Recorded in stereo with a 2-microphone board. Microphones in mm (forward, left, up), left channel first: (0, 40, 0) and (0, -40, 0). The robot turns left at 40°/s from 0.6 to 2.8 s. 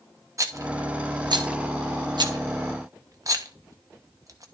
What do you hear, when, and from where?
0.4 s a rattle: 40° right (ahead or behind), 1.1 m; by 4.5 s 45° right (ahead or behind), 1.1 m